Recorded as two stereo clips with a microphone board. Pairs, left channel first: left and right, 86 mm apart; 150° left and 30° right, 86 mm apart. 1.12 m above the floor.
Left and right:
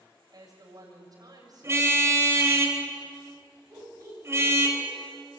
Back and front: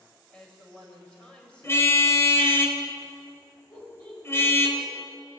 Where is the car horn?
150° right, 3 m.